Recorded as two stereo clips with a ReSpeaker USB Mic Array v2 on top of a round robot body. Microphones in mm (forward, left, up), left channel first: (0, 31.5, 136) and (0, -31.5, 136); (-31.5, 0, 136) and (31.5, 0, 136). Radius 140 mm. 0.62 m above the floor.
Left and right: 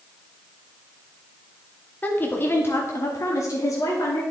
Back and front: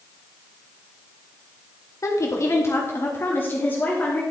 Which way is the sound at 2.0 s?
150° left.